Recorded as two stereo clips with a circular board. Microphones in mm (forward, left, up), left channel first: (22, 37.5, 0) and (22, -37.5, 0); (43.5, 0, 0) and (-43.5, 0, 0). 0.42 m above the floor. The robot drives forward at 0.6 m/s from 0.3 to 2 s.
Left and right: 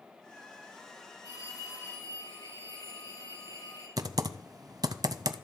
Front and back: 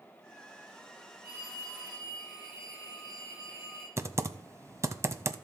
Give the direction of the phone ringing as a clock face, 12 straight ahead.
8 o'clock.